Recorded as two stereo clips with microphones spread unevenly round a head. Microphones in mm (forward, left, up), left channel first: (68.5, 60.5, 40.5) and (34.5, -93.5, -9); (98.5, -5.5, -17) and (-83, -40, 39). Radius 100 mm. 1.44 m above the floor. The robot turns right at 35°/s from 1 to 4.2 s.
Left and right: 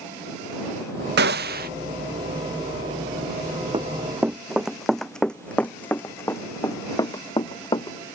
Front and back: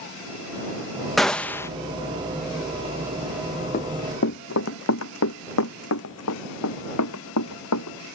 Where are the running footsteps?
35° right; by 8.0 s 25° left.